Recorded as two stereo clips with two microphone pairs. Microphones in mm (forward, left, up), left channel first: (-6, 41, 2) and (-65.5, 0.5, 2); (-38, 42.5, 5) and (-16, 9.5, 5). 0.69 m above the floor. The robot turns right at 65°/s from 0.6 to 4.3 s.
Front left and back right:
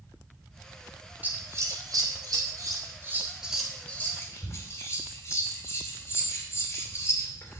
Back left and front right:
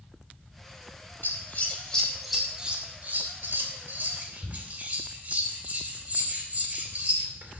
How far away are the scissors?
About 2.5 m.